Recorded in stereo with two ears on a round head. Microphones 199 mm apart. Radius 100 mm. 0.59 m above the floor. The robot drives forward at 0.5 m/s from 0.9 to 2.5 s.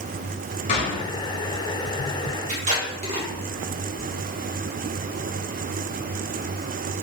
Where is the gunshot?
35° left (ahead or behind), 1.3 m.